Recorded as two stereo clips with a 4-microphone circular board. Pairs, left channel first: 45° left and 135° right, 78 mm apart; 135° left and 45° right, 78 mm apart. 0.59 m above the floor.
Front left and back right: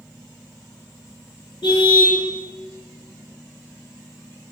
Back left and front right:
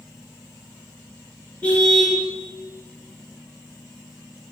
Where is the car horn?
60° left, 5.5 m.